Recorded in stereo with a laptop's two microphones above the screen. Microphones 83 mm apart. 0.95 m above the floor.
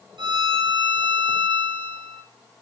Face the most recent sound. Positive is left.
turn(degrees=-65)  # may be behind; listen again after turning